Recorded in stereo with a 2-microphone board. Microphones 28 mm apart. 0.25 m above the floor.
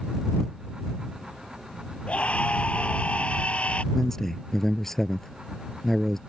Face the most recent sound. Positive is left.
turn(degrees=15)  # may be behind; listen again after turning